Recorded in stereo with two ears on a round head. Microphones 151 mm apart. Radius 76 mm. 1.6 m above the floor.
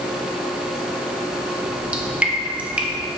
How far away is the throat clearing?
I don't hear throat clearing.